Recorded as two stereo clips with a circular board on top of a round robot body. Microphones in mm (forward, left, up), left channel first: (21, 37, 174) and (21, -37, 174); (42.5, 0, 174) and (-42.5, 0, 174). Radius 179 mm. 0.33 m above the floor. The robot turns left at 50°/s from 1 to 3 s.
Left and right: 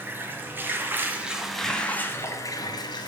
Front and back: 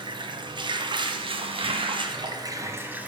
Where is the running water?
155° right, 1.6 m; by 3.1 s 105° left, 1.6 m.